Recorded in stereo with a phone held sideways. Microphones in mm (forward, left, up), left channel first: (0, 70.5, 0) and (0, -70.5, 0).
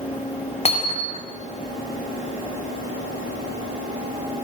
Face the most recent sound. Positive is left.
turn(degrees=45)  # may be behind; listen again after turning